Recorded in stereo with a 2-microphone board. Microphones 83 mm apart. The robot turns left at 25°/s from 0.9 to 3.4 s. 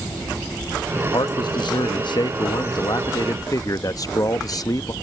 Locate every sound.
0.9 s a man speaking: 115° left; by 4.9 s 55° left